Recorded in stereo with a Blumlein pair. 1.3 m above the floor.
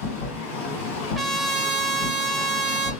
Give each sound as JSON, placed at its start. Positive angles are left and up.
{"t": 0.0, "sound": "a machine running", "azimuth_deg": 40, "distance_m": 1.6}
{"t": 1.1, "sound": "a trumpet", "azimuth_deg": -10, "distance_m": 0.5}